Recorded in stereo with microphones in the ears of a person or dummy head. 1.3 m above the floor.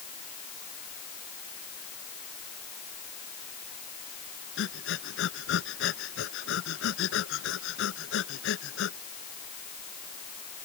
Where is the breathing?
75° left (ahead or behind).